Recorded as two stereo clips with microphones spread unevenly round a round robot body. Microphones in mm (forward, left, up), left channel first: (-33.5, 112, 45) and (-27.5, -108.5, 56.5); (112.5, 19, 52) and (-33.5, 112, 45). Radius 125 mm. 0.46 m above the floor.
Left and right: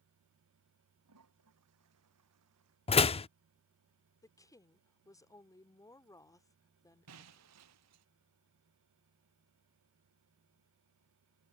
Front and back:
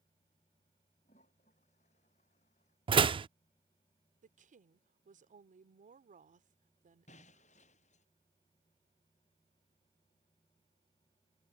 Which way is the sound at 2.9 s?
125° left.